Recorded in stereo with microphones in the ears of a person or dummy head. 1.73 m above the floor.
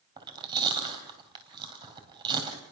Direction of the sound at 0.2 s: 25° right (ahead or behind).